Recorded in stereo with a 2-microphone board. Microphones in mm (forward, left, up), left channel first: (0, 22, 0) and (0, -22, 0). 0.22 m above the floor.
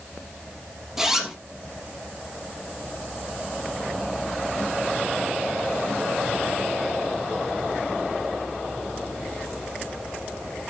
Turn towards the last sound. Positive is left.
turn(degrees=-5)  # may be behind; listen again after turning